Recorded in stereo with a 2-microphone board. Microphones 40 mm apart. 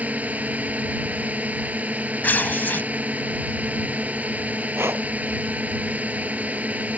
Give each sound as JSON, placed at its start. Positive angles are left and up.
{"t": 0.0, "sound": "a drone", "side_deg": -40}
{"t": 2.2, "sound": "tearing paper", "side_deg": 50}
{"t": 4.8, "sound": "breathing", "side_deg": -85}